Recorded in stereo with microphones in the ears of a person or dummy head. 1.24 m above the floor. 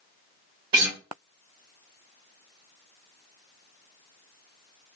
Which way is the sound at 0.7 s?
25° right (ahead or behind).